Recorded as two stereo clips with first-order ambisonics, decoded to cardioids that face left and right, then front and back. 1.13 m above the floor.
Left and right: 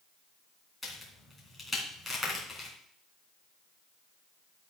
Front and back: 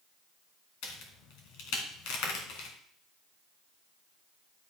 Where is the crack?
10° left, 3.5 m.